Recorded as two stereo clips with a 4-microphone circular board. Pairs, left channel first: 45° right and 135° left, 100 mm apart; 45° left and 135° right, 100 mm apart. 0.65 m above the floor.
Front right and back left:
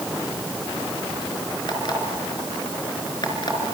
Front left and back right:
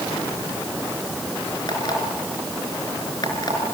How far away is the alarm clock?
About 4.5 m.